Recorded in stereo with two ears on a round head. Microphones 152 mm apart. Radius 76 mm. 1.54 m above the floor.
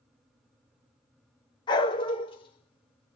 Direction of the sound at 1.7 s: 25° left (ahead or behind).